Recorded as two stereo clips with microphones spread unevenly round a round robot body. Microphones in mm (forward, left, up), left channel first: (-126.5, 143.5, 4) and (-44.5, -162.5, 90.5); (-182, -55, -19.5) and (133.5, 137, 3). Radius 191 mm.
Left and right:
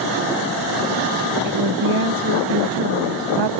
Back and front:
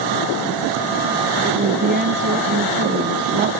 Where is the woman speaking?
35° right.